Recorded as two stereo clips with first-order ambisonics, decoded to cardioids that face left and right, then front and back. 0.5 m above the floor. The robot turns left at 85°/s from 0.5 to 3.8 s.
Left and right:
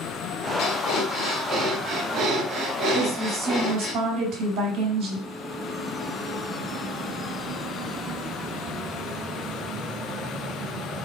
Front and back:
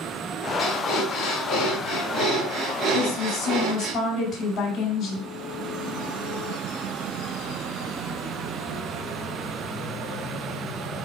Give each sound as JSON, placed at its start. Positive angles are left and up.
{"t": 0.6, "sound": "breathing", "azimuth_deg": 75, "distance_m": 2.5}
{"t": 2.9, "sound": "a woman speaking", "azimuth_deg": 10, "distance_m": 4.5}